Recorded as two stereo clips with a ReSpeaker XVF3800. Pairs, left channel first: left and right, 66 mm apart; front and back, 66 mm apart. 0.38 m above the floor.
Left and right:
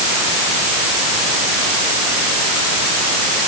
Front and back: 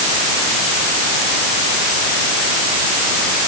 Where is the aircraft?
I don't hear an aircraft.